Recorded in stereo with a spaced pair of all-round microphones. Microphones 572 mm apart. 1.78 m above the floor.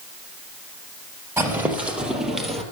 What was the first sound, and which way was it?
Footsteps, 5° right (ahead or behind).